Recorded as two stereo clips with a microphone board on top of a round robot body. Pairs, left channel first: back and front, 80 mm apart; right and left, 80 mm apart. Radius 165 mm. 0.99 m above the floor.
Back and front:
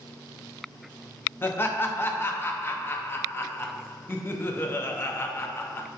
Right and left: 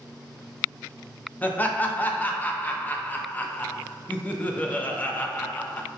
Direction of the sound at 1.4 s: 145° right.